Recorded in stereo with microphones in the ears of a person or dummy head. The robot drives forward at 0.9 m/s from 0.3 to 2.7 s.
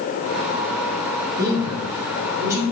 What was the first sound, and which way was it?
A man speaking, 20° right (ahead or behind).